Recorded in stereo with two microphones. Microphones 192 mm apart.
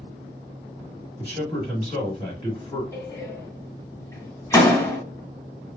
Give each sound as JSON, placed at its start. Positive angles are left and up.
{"t": 1.2, "sound": "a man speaking", "side_deg": 30, "distance_m": 1.6}
{"t": 2.9, "sound": "a door slam", "side_deg": 15, "distance_m": 0.8}